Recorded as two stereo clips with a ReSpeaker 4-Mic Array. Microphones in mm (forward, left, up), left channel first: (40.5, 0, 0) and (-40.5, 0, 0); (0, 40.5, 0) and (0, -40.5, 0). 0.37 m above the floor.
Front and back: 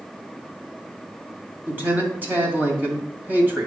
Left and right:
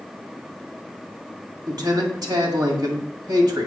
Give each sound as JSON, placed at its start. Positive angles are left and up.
{"t": 1.7, "sound": "a man speaking", "azimuth_deg": -115, "distance_m": 1.8}